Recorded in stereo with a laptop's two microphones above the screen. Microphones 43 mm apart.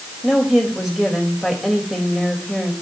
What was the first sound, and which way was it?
A woman speaking, 5° right (ahead or behind).